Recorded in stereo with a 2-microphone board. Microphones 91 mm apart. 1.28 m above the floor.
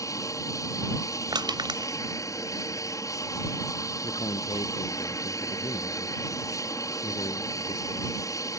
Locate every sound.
0.0 s an aircraft: 40° left (ahead or behind)
1.3 s crushing: 55° right (ahead or behind)
4.0 s a man speaking: 60° left (ahead or behind)